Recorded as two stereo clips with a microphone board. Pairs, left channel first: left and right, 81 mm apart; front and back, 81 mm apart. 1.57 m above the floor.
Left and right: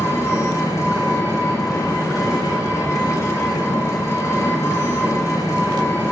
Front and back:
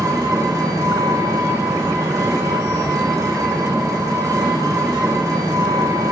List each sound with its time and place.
0.0 s an engine running: 140° left, 2.5 m